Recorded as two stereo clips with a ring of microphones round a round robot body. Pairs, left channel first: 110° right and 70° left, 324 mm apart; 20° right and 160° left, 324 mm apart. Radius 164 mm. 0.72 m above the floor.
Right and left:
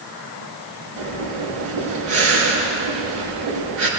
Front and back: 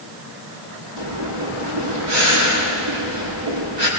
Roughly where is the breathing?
Behind left.